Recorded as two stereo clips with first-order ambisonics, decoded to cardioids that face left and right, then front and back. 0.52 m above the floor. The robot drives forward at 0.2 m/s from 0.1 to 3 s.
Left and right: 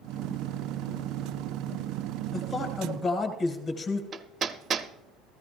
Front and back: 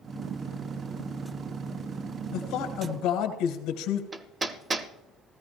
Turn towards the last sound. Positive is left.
turn(degrees=-130)